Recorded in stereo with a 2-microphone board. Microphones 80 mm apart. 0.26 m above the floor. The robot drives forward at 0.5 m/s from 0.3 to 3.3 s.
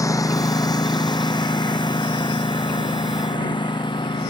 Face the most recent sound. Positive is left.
turn(degrees=85)